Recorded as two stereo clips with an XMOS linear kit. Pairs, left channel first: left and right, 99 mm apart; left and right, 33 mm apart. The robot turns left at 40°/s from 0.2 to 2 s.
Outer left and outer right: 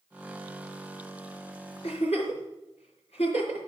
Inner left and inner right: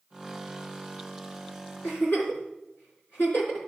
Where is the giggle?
85° left, 4 m.